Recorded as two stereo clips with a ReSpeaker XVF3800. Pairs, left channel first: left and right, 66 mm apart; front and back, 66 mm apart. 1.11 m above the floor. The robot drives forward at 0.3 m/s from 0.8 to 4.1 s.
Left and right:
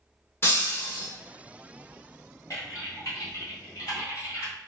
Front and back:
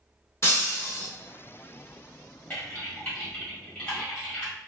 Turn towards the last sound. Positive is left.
turn(degrees=75)